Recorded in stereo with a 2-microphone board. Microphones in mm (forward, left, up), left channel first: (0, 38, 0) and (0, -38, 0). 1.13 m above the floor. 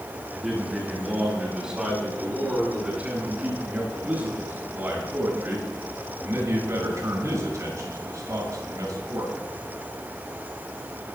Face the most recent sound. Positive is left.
turn(degrees=-55)  # may be behind; listen again after turning